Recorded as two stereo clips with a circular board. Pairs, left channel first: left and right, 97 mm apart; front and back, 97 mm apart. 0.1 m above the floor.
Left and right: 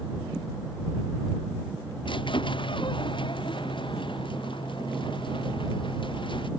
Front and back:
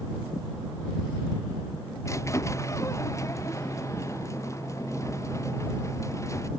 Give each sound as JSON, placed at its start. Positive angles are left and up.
{"t": 2.0, "sound": "a squeak", "azimuth_deg": 60}